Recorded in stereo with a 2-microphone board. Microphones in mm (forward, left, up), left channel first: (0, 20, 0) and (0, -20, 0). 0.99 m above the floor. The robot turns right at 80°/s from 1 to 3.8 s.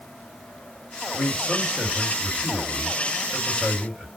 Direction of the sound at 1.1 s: 100° left.